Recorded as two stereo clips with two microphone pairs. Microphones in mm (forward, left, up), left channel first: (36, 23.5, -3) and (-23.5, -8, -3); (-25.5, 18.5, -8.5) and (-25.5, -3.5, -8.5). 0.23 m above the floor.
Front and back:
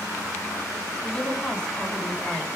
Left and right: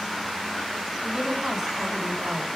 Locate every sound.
1.0 s a woman speaking: 40° right, 2 m